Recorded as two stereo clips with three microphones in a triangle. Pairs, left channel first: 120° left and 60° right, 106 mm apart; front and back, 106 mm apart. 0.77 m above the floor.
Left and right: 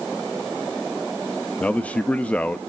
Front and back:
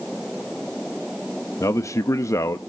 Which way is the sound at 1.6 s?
50° left.